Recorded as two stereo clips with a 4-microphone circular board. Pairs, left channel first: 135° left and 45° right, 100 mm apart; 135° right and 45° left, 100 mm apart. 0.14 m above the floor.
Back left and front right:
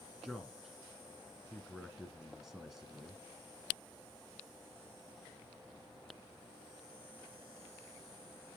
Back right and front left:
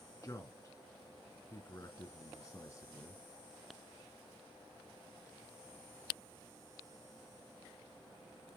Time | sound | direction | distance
0.2 | a man speaking | 125° right | 1.7 m